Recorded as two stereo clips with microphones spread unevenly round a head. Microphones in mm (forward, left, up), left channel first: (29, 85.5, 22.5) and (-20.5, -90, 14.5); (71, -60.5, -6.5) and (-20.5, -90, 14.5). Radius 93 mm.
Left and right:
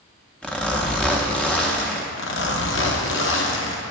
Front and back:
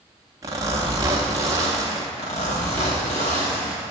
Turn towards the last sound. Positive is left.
turn(degrees=60)